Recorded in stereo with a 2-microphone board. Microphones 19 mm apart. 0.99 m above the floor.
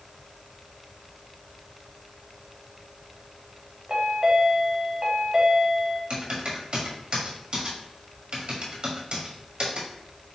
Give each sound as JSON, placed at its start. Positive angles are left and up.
{"t": 3.9, "sound": "a chime", "side_deg": -45, "distance_m": 1.2}
{"t": 6.1, "sound": "typing on a keyboard", "side_deg": -50, "distance_m": 1.4}